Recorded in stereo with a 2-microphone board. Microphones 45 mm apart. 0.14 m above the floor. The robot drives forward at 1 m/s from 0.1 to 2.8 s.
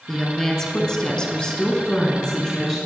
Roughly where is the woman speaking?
Centre.